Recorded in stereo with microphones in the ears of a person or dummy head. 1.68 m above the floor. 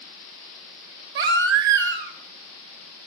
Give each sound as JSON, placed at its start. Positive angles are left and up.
{"t": 1.1, "sound": "a baby crying", "side_deg": -60, "distance_m": 2.0}